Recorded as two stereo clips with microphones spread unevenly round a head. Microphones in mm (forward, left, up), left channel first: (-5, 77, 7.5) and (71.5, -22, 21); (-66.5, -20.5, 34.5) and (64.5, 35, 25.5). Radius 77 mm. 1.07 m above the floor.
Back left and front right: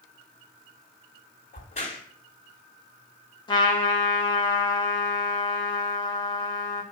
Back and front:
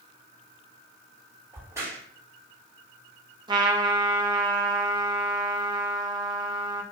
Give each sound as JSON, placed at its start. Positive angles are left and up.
{"t": 1.5, "sound": "a crack", "azimuth_deg": 95, "distance_m": 3.0}
{"t": 3.5, "sound": "a trumpet", "azimuth_deg": 80, "distance_m": 1.5}